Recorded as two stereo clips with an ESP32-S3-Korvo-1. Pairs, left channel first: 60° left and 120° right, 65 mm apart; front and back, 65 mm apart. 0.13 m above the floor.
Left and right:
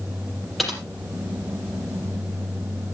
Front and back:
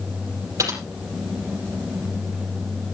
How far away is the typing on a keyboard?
About 5.5 m.